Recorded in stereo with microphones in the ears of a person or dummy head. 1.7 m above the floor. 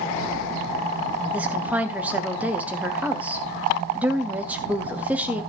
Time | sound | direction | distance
1.3 | a woman speaking | 5° right (ahead or behind) | 1.1 m